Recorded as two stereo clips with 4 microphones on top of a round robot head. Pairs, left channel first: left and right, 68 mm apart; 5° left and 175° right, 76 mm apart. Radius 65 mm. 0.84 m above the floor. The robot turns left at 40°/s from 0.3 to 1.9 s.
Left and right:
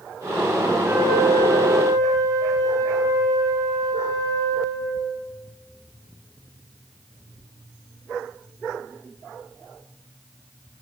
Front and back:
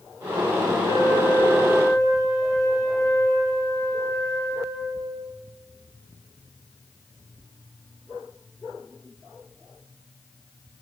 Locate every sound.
0.8 s a flute: 20° right, 7.5 m; by 5.0 s 65° right, 7.5 m